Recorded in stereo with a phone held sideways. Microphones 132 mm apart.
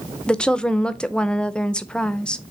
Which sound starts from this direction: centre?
A woman speaking, at 0.3 s.